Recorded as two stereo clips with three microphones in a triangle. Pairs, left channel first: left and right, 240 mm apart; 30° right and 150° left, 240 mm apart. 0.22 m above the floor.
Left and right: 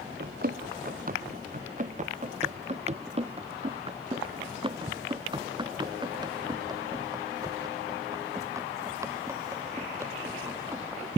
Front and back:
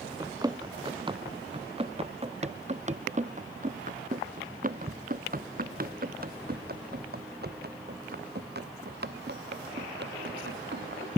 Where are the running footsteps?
135° right; by 11.1 s 170° right.